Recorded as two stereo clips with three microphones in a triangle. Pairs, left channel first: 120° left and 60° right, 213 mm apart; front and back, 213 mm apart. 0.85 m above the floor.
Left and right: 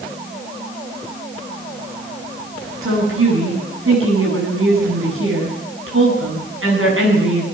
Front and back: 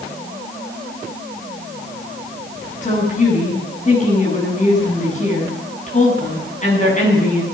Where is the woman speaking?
55° right, 9.5 m.